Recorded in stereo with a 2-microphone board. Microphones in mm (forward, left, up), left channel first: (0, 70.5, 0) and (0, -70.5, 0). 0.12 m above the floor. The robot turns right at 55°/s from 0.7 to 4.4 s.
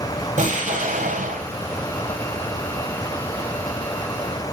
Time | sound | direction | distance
0.4 | an explosion | 110° right | 3.5 m